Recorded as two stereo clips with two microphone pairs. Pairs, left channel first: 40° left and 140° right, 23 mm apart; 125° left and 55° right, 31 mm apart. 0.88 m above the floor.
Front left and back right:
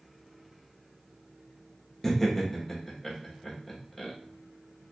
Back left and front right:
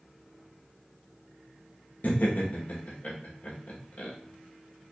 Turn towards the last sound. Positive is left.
turn(degrees=115)